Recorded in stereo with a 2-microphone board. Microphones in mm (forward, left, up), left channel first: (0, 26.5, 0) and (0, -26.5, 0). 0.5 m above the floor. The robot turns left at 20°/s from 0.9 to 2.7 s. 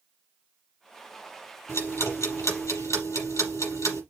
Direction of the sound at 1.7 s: 60° left (ahead or behind).